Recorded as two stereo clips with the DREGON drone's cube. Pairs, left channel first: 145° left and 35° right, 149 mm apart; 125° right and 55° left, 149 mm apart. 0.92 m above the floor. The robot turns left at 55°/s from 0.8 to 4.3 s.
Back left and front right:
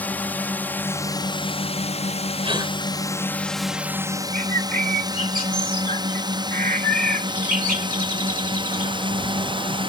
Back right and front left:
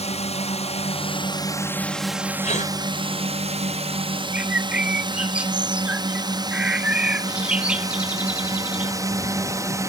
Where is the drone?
140° right; by 9.9 s 5° right.